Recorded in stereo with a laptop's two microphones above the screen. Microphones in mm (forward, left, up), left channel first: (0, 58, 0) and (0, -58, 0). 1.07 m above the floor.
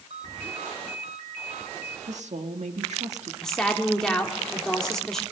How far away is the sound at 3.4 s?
About 2 m.